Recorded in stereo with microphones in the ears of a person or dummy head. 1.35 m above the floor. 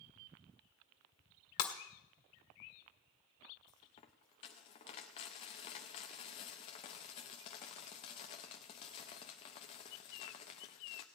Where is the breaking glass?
55° left (ahead or behind), 1.5 m.